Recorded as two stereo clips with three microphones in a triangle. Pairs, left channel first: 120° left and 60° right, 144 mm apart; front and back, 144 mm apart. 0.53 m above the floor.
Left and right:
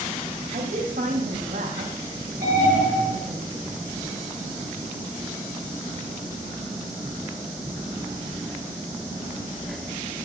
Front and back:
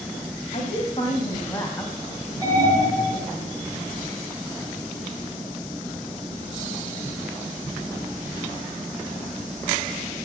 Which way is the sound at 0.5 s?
40° right.